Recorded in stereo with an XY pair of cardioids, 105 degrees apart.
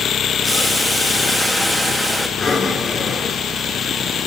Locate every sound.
0.4 s boiling: 10° right, 3 m
2.4 s breathing: 35° left, 4 m